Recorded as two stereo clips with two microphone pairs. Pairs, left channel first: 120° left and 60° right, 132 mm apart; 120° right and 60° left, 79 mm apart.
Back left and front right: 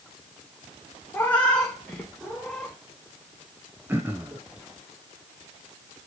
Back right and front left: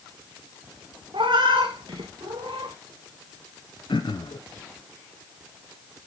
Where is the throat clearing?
130° right, 1.0 m.